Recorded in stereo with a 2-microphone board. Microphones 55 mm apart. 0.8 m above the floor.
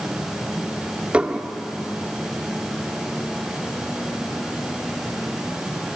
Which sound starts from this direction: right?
Dishes clattering, at 1.1 s.